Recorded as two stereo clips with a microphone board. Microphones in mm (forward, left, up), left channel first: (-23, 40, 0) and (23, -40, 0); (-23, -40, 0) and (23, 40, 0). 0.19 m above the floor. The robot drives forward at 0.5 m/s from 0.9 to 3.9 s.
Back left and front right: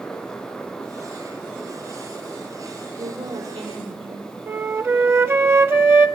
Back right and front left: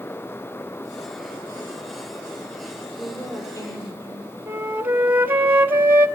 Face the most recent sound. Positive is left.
turn(degrees=-5)